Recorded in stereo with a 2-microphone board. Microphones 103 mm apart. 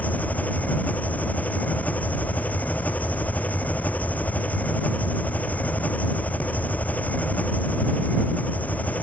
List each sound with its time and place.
0.0 s an engine running: 15° left (ahead or behind)